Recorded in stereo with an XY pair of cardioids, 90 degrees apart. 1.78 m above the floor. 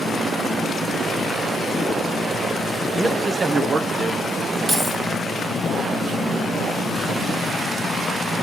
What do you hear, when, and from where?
2.9 s a man speaking: 30° right, 1.3 m
4.7 s keys jangling: 25° right, 4 m